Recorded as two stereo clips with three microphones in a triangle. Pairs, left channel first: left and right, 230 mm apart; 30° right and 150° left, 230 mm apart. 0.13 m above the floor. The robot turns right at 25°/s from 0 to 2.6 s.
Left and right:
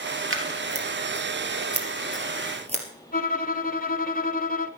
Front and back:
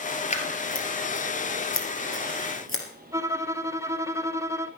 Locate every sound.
0.3 s scissors: 90° right, 2 m; by 2.8 s 30° right, 2 m
3.1 s a violin: 80° left, 0.6 m